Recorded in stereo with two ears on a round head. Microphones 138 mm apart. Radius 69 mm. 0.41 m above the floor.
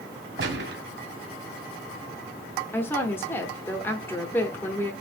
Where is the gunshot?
80° right, 1.4 m.